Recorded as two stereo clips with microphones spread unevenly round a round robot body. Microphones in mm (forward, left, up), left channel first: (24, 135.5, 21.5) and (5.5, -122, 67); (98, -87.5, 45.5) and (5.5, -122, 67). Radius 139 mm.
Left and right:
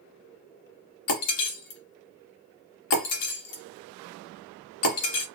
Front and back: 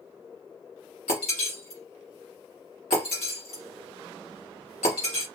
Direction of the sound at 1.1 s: 55° left.